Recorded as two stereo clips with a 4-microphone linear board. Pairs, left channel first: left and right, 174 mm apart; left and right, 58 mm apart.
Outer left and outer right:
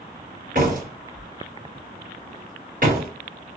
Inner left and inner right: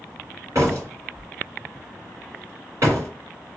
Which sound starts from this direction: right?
A door slam, at 0.6 s.